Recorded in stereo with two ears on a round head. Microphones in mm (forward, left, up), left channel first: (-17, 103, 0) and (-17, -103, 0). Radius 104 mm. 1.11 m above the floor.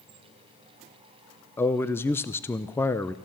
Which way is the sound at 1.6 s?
10° left (ahead or behind).